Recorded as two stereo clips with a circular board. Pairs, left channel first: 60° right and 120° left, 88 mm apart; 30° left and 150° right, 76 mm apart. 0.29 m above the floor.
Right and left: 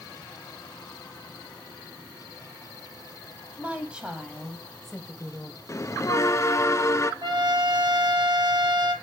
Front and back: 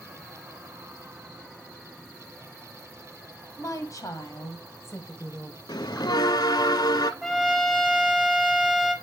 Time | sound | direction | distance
3.6 | a woman speaking | 50° left | 2 m
5.7 | a bell | straight ahead | 0.6 m
7.2 | a trumpet | 115° left | 1.5 m